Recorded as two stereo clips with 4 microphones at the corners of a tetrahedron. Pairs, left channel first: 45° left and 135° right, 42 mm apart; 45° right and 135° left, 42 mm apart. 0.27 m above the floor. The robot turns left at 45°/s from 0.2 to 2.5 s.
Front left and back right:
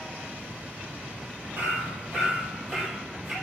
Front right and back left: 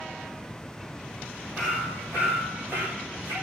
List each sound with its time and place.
1.6 s hammering: 175° right, 6.5 m; by 3.3 s 145° left, 6.5 m